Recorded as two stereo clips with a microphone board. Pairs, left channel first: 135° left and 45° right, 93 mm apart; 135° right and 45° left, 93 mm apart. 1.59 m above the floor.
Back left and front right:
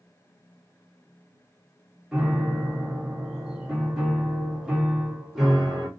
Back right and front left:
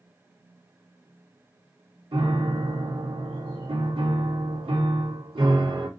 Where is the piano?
40° left, 1.5 m.